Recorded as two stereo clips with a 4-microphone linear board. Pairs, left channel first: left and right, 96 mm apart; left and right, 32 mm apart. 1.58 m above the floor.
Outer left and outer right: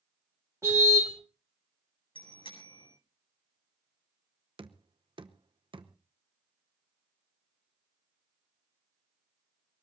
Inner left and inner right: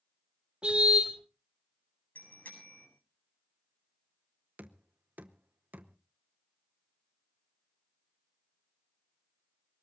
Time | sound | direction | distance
0.6 | a car horn | 30° right (ahead or behind) | 4.5 m
2.1 | a bicycle bell | 65° left (ahead or behind) | 8 m
4.6 | knocking | 60° right (ahead or behind) | 0.9 m